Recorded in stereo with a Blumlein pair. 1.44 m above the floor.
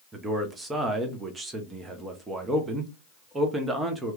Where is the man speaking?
15° right, 0.8 m.